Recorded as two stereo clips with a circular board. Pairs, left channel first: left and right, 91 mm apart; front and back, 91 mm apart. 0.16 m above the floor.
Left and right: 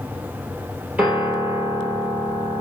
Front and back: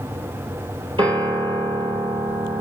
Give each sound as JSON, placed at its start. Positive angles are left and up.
{"t": 1.0, "sound": "a piano", "azimuth_deg": -165, "distance_m": 3.0}